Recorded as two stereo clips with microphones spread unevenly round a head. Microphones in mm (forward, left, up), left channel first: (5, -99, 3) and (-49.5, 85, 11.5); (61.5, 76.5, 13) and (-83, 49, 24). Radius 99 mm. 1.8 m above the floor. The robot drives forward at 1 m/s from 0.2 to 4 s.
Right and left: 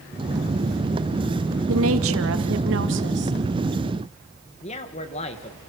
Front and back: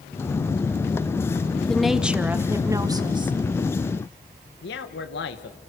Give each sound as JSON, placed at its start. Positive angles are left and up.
{"t": 1.7, "sound": "a woman speaking", "azimuth_deg": 100, "distance_m": 2.0}
{"t": 4.6, "sound": "a man speaking", "azimuth_deg": -15, "distance_m": 1.9}